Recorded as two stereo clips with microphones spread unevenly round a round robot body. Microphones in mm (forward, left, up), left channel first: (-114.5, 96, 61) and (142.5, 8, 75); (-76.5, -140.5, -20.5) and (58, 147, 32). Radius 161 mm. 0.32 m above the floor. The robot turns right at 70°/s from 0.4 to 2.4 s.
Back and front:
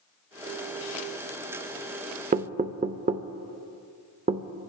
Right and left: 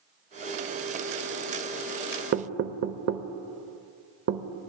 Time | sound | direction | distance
2.3 | knocking | 20° left | 0.7 m